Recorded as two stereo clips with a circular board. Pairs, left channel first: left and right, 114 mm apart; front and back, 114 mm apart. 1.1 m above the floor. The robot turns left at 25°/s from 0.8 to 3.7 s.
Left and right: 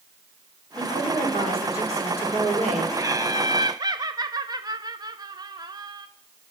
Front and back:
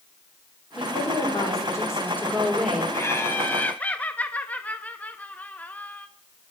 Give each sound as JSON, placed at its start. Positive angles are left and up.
{"t": 0.8, "sound": "a woman speaking", "azimuth_deg": -40, "distance_m": 3.0}
{"t": 2.9, "sound": "laughter", "azimuth_deg": -50, "distance_m": 0.7}